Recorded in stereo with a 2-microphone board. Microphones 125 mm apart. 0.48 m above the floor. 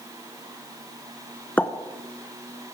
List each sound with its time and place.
1.6 s a pop: 15° left (ahead or behind), 0.8 m